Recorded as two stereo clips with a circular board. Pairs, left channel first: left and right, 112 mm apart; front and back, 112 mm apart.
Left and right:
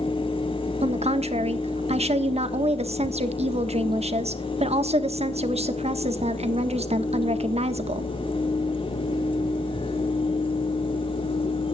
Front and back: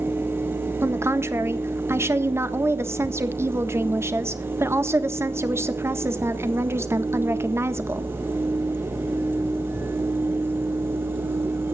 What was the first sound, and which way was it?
A woman speaking, 115° right.